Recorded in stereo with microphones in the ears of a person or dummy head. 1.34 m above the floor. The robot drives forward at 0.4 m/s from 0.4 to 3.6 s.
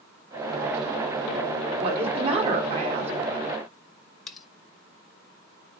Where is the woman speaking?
30° right (ahead or behind), 3.5 m; by 3.1 s 35° right (ahead or behind), 3 m.